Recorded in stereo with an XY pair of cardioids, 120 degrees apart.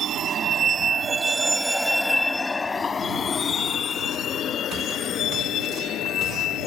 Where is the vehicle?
50° right; by 6.7 s 65° left.